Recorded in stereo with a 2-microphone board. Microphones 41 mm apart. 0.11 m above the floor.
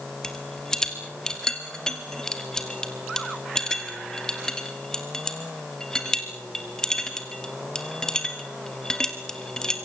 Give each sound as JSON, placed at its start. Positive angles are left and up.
{"t": 0.2, "sound": "a rattle", "side_deg": 15, "distance_m": 2.5}